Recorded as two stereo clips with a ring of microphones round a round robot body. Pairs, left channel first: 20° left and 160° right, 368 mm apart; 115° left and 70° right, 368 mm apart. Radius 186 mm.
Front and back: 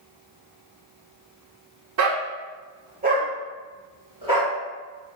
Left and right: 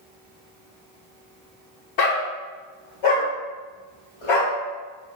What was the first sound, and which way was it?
A dog barking, 150° left.